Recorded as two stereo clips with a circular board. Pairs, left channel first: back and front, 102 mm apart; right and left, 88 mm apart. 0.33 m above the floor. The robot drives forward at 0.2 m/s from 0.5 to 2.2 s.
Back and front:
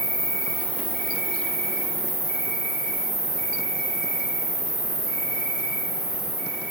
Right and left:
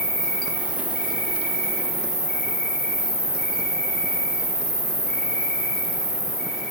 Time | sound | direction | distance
0.0 | an insect | 165° left | 2.0 m